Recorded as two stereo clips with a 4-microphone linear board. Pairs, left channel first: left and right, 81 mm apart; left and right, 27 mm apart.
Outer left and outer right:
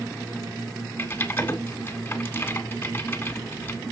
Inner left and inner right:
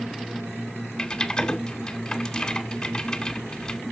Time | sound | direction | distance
1.0 | typing on a keyboard | 25° left (ahead or behind) | 1.3 m